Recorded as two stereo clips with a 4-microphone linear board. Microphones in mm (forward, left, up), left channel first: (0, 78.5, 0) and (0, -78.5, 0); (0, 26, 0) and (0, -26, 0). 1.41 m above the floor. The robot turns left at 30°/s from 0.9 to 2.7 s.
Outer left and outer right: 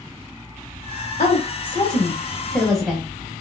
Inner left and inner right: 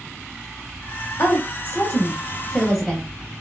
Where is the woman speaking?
45° left (ahead or behind), 0.7 m; by 3.4 s centre (ahead or behind), 0.7 m.